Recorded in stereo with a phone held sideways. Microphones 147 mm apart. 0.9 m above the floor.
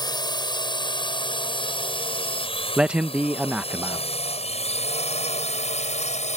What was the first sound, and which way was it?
A drone, 30° left (ahead or behind).